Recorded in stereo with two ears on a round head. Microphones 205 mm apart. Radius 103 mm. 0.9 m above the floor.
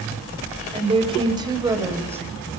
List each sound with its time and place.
0.7 s a woman speaking: 25° right (ahead or behind), 3.5 m; by 2.2 s 10° right (ahead or behind), 4 m